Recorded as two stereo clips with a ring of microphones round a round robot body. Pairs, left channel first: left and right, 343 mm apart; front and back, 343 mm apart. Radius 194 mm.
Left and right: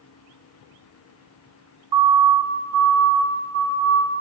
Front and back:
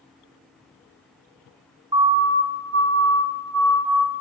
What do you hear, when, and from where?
1.9 s a siren: 105° right, 2.5 m; by 4.2 s 145° right, 4.5 m